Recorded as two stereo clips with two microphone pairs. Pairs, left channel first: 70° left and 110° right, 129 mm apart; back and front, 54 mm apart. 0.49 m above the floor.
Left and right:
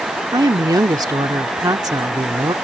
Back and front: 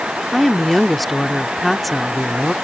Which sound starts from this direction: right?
A woman speaking, at 0.3 s.